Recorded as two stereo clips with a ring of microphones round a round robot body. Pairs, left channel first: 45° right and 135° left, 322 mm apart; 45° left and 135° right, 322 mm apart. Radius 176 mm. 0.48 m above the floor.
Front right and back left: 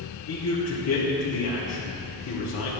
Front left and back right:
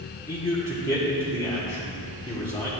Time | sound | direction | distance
0.3 | a man speaking | 30° right | 1.8 m